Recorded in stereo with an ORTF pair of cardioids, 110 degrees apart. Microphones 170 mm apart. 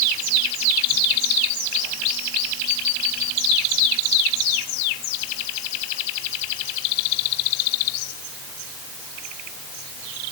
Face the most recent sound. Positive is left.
No sound to turn to.